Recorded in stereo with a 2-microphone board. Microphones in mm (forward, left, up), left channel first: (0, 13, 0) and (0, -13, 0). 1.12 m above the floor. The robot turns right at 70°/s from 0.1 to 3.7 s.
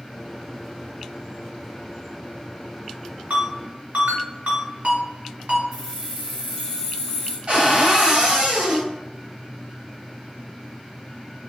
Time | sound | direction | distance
3.3 | a ringtone | 85° right | 1.9 m
5.7 | keys jangling | 15° right (ahead or behind) | 1.8 m
7.5 | a cupboard door | 45° right (ahead or behind) | 1.2 m